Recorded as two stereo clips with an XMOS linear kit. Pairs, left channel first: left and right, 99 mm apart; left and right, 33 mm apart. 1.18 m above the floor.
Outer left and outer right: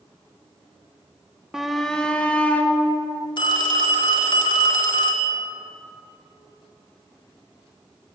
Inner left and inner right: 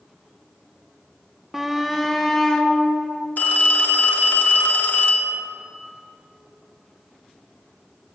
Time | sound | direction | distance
1.5 | a shout | 5° right (ahead or behind) | 0.7 m
3.4 | a phone ringing | 50° left (ahead or behind) | 1.3 m